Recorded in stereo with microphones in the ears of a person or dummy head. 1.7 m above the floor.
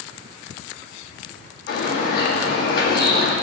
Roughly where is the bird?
Left.